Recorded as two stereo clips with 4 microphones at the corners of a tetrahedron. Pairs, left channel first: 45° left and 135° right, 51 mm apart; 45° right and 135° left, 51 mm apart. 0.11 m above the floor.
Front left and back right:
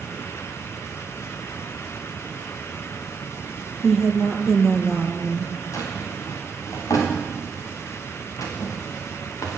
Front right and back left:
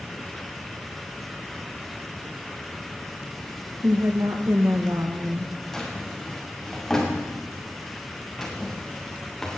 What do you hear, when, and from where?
3.8 s a woman speaking: 130° left, 3.5 m
5.7 s a drawer: 40° left, 6 m